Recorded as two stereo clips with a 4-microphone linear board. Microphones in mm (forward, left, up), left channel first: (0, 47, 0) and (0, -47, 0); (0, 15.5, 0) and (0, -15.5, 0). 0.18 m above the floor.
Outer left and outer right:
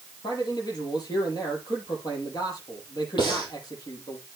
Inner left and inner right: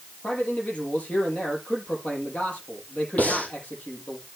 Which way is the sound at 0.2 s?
40° left (ahead or behind).